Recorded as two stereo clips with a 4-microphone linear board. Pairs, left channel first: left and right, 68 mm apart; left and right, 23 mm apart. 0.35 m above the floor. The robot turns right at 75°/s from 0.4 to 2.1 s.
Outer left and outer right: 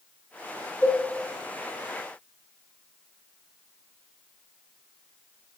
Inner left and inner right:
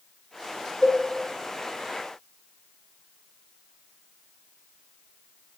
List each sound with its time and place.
0.8 s a cowbell: 65° left (ahead or behind), 1.1 m